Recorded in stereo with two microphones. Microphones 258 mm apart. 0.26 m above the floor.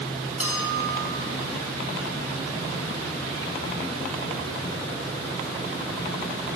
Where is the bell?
60° left (ahead or behind), 2.5 m.